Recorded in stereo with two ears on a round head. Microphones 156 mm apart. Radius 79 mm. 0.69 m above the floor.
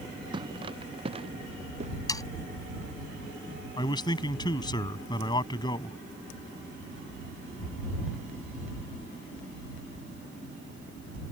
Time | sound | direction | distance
0.3 | footsteps | 25° right (ahead or behind) | ?
2.1 | sawing | 20° left (ahead or behind) | ?
3.8 | a man speaking | 25° left (ahead or behind) | ?